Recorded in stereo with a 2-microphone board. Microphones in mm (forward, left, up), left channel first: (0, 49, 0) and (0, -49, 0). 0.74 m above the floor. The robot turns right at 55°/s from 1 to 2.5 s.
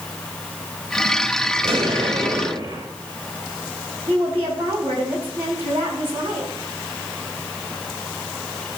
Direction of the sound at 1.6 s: 115° right.